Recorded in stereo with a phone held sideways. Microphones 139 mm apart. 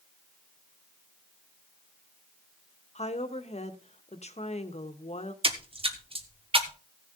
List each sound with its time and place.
3.0 s a woman speaking: 50° left (ahead or behind), 1.2 m
5.4 s a splash: 40° right (ahead or behind), 1.1 m